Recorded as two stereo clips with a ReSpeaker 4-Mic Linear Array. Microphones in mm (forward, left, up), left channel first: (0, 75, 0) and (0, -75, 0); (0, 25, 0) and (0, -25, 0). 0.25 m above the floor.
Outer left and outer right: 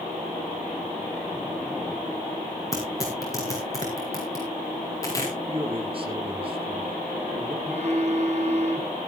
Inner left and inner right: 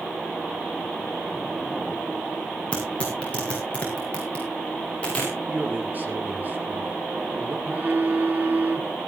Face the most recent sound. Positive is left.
turn(degrees=-45)  # may be behind; listen again after turning